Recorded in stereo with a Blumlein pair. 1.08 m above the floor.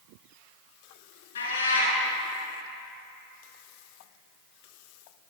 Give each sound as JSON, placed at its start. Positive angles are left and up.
{"t": 1.4, "sound": "a cat meowing", "azimuth_deg": 65, "distance_m": 2.5}